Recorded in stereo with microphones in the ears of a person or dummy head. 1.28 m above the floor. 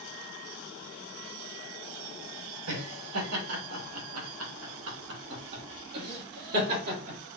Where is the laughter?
70° right (ahead or behind), 1.7 m; by 7.2 s 50° right (ahead or behind), 3 m.